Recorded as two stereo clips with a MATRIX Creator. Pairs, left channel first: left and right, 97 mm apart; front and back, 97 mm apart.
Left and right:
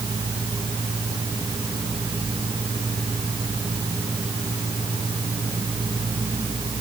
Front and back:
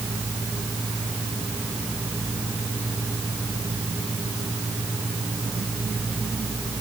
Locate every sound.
Only background noise.